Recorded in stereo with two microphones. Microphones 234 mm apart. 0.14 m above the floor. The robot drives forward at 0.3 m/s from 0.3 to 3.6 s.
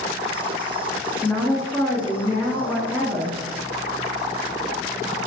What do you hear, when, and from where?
1.2 s a woman speaking: 5° left (ahead or behind), 1.3 m